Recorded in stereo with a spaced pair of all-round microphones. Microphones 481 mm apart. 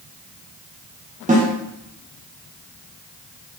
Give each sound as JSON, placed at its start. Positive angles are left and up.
{"t": 1.3, "sound": "a snare drum", "side_deg": -15, "distance_m": 0.6}